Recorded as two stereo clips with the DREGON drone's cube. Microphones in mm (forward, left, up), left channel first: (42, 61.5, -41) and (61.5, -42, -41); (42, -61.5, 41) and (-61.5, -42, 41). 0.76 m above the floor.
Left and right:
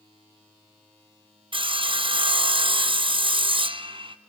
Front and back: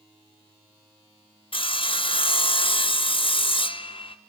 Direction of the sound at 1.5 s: 40° right.